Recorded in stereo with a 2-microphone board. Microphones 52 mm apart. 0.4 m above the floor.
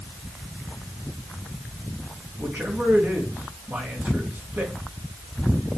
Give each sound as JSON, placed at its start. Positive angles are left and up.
{"t": 2.4, "sound": "a man speaking", "side_deg": -45, "distance_m": 4.5}